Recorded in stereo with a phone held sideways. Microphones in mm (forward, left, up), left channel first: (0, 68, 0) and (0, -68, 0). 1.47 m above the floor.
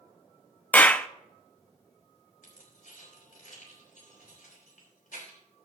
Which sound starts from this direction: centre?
A clap, at 0.7 s.